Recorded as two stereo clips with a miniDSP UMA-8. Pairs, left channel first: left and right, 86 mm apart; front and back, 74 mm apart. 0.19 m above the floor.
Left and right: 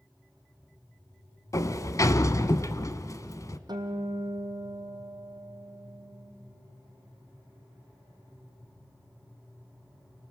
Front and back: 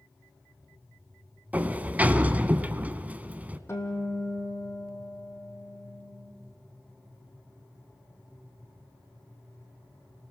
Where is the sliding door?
120° left, 0.8 m.